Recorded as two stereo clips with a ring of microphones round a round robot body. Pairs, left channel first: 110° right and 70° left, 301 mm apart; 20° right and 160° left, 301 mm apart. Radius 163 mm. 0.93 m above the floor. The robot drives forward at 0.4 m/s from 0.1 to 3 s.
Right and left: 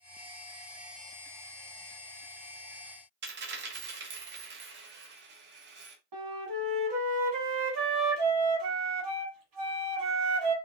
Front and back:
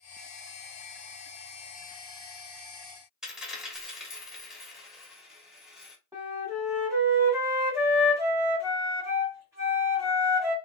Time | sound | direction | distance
3.2 | a dropped coin | 70° left | 0.7 m
6.1 | a flute | 75° left | 1.2 m